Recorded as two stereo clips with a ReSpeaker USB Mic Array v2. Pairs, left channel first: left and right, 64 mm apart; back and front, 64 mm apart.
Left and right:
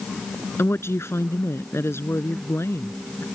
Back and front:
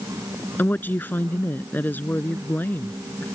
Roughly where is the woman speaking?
Behind left.